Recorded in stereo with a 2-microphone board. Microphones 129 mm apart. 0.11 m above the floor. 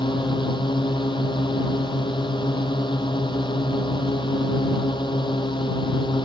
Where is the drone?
35° left (ahead or behind).